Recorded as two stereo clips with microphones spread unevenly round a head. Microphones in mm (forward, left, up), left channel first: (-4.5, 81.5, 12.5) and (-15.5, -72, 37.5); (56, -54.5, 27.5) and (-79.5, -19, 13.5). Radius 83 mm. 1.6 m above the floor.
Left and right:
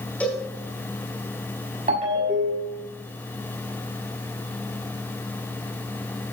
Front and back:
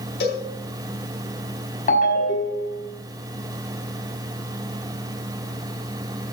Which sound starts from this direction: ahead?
A cowbell, at 0.2 s.